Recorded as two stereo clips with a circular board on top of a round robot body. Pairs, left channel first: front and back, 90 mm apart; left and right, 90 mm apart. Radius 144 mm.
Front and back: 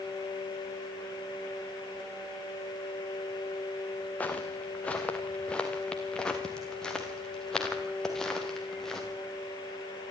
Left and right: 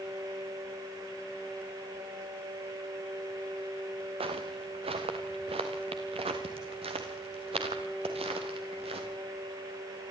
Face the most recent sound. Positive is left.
turn(degrees=-85)